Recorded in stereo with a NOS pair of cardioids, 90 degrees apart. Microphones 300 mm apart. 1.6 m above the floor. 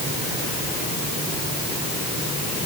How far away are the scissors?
No scissors in this recording.